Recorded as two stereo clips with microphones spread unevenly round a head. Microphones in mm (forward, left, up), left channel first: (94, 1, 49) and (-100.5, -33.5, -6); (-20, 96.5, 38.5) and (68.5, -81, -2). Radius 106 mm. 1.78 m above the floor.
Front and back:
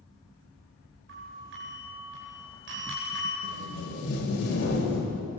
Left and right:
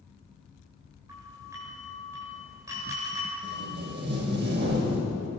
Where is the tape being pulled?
25° right, 6.5 m.